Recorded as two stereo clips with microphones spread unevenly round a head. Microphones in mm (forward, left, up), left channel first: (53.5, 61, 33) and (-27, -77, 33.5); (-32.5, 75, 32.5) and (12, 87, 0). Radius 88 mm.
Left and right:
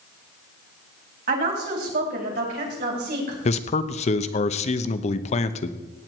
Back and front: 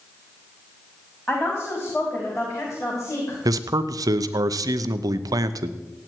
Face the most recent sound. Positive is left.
turn(degrees=15)